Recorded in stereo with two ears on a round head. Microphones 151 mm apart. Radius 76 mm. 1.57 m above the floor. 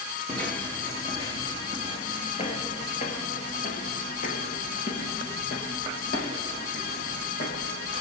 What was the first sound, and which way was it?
Footsteps, 5° left (ahead or behind).